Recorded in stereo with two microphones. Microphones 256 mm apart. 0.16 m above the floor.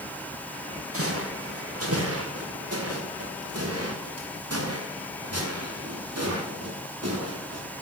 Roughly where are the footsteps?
Right.